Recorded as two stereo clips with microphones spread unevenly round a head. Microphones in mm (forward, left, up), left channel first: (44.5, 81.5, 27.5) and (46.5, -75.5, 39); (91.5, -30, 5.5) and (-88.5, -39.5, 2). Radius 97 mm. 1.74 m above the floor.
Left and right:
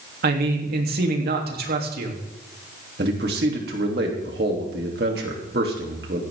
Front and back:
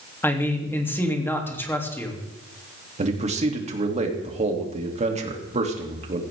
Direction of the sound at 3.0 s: 125° right.